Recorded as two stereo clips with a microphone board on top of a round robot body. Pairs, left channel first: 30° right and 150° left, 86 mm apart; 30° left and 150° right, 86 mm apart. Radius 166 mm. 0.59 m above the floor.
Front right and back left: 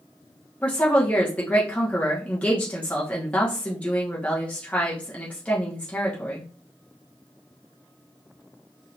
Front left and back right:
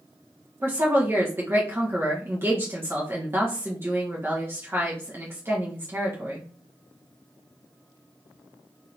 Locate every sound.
0.6 s a woman speaking: 100° right, 1.2 m